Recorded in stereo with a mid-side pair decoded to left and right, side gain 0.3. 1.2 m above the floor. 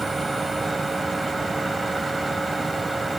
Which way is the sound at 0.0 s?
35° right.